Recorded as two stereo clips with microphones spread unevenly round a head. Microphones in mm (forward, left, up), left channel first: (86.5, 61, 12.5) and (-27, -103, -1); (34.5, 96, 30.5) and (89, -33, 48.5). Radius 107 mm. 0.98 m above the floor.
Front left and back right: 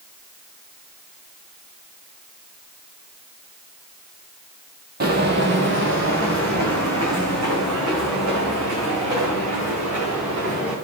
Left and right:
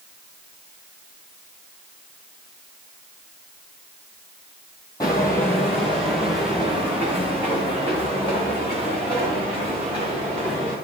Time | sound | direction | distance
5.0 | footsteps | 170° right | 1.7 m